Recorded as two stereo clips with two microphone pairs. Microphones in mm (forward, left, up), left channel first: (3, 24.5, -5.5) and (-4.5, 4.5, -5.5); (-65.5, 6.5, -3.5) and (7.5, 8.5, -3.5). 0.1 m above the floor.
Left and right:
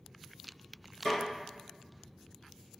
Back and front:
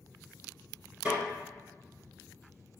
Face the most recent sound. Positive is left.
turn(degrees=60)